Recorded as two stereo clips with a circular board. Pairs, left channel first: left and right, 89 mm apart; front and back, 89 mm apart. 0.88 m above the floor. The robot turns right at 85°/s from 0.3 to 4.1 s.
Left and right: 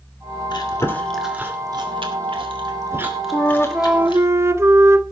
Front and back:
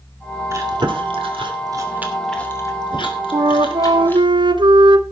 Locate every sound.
0.5 s chewing: 125° left, 2.5 m; by 4.3 s 70° left, 2.5 m
3.3 s a flute: 145° left, 0.8 m; by 5.0 s 150° right, 0.8 m